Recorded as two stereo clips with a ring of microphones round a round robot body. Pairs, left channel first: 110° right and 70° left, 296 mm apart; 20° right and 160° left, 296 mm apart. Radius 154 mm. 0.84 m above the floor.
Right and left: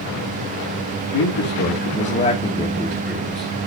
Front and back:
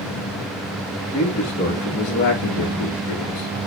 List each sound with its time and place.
1.1 s a man speaking: 90° right, 1.5 m; by 3.7 s straight ahead, 1.3 m